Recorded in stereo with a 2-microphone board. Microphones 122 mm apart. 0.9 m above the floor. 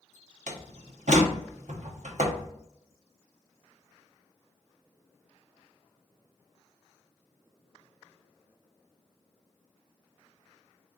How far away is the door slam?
About 0.8 m.